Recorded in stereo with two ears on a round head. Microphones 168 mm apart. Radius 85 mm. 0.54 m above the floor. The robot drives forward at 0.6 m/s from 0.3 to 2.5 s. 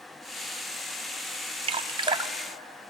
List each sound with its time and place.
1.6 s dripping: 30° right (ahead or behind), 0.5 m; by 2.3 s 20° right (ahead or behind), 0.7 m